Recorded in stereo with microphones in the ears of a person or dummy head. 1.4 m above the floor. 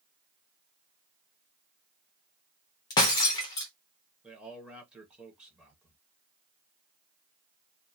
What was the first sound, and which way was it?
Breaking glass, 20° left (ahead or behind).